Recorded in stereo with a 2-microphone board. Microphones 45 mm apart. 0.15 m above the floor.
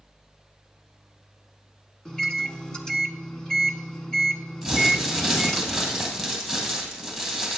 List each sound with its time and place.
2.0 s a microwave: 20° left (ahead or behind), 0.9 m
4.6 s crumpling: 5° left (ahead or behind), 2.5 m